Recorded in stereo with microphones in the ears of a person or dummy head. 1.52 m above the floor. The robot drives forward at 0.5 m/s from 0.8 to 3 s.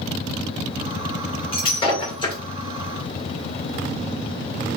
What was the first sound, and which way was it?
Breaking glass, 35° left (ahead or behind).